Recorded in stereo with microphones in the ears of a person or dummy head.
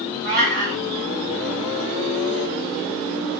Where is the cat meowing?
60° right (ahead or behind), 1.9 m.